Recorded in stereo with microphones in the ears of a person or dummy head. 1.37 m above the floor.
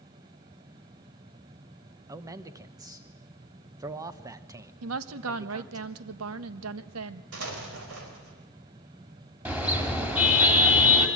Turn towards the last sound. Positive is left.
turn(degrees=-10)  # may be behind; listen again after turning